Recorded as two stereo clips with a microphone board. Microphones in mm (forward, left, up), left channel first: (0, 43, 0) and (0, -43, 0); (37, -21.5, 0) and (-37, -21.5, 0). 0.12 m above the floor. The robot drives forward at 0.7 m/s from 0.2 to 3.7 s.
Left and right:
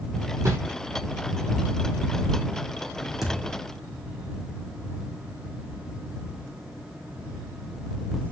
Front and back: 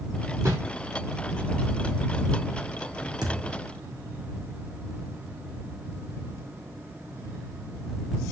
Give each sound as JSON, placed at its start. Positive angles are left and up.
{"t": 0.5, "sound": "a whoosh", "azimuth_deg": -140, "distance_m": 2.5}
{"t": 3.2, "sound": "a thud", "azimuth_deg": 180, "distance_m": 3.0}